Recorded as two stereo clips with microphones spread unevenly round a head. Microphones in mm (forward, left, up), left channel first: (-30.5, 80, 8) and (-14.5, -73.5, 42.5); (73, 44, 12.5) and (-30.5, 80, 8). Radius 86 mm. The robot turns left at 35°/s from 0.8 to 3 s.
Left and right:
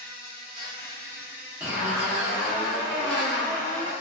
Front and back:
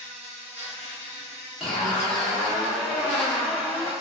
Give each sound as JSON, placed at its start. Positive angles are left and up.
{"t": 0.0, "sound": "an insect", "azimuth_deg": -145, "distance_m": 1.0}
{"t": 1.6, "sound": "a zipper", "azimuth_deg": -100, "distance_m": 0.9}